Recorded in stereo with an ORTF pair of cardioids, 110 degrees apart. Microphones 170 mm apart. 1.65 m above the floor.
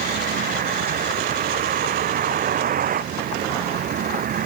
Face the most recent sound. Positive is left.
turn(degrees=-55)